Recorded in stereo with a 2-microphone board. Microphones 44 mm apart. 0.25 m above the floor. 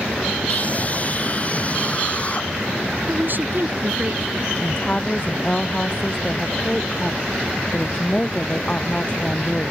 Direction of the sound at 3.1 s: 50° right (ahead or behind).